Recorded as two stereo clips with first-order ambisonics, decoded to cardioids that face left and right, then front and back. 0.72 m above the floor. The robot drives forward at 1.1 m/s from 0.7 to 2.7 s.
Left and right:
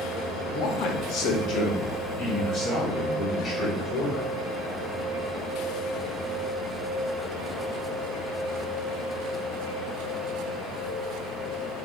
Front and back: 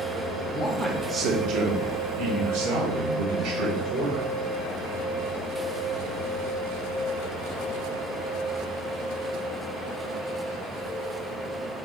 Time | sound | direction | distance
0.5 | a man speaking | 70° left | 0.8 m